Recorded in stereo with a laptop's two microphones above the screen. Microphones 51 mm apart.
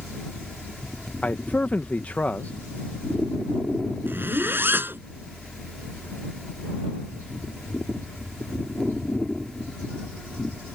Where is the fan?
5° left (ahead or behind).